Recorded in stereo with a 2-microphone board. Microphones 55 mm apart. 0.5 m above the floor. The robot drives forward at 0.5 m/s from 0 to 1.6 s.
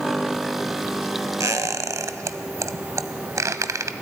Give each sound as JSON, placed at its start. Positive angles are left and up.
{"t": 1.4, "sound": "a squeak", "side_deg": -80, "distance_m": 0.9}